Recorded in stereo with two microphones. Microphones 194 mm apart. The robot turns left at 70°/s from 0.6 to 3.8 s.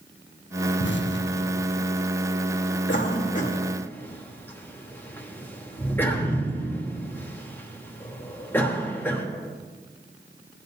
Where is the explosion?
70° left (ahead or behind), 0.8 m; by 1.9 s 20° left (ahead or behind), 0.8 m.